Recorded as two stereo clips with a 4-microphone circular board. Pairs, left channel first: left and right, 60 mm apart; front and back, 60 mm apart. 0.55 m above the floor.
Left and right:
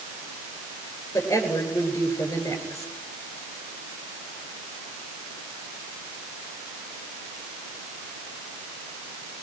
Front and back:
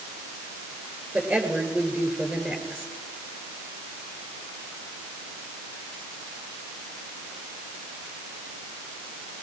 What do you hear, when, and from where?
1.1 s a woman speaking: 120° left, 8 m